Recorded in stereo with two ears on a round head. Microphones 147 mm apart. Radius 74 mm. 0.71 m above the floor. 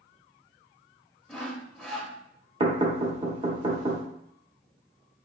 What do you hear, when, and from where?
1.3 s sawing: centre (ahead or behind), 0.7 m
2.6 s knocking: 30° right (ahead or behind), 0.9 m